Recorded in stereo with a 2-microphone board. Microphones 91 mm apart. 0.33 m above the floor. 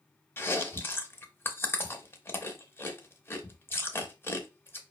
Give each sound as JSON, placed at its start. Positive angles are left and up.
{"t": 0.4, "sound": "chewing", "side_deg": 25, "distance_m": 0.6}